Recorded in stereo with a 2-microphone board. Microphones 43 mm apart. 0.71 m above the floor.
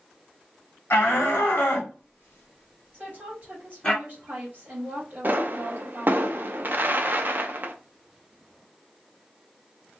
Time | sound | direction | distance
0.9 | a shout | 60° left (ahead or behind) | 1.5 m
2.9 | a woman speaking | 45° right (ahead or behind) | 1.5 m
5.2 | a pop | 50° right (ahead or behind) | 0.5 m